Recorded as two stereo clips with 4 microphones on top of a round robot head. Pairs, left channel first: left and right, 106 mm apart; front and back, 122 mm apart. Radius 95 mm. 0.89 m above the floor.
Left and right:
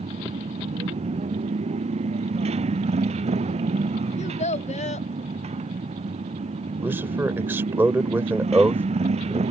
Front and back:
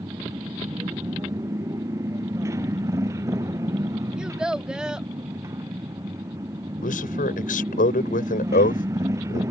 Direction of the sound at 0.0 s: 110° right.